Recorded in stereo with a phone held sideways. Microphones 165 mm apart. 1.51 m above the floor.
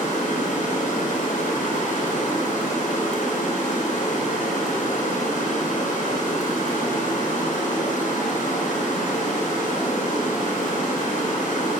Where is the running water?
50° left (ahead or behind), 1.2 m.